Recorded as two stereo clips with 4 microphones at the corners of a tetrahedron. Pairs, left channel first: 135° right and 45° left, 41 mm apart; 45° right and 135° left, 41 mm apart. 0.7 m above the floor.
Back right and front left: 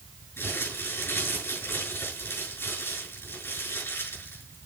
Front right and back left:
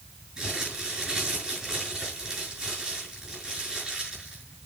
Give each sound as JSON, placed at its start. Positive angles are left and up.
{"t": 0.4, "sound": "crumpling", "azimuth_deg": -150, "distance_m": 6.5}